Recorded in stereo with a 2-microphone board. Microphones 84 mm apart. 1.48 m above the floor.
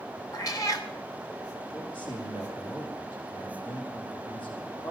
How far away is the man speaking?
About 4.5 m.